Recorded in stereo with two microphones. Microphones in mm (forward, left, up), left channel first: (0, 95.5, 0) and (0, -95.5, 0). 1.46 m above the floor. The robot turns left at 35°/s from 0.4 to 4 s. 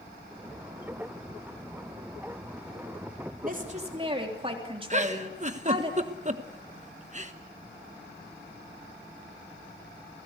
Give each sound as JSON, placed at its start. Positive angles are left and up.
{"t": 3.4, "sound": "a woman speaking", "side_deg": -50, "distance_m": 3.5}
{"t": 4.9, "sound": "a giggle", "side_deg": -40, "distance_m": 1.2}